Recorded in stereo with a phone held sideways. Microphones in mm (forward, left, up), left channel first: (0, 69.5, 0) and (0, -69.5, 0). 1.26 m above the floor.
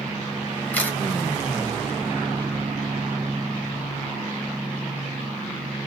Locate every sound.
0.7 s a camera shutter: 10° left (ahead or behind), 1.1 m